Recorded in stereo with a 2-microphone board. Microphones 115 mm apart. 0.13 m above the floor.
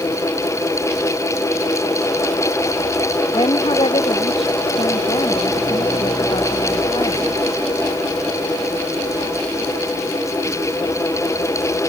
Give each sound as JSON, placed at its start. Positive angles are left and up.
{"t": 3.3, "sound": "a woman speaking", "side_deg": 50}